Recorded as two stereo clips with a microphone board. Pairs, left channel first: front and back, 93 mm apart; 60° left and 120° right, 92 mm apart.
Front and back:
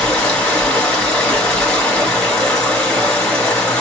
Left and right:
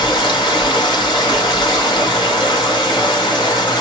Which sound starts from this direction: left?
Running water, at 0.0 s.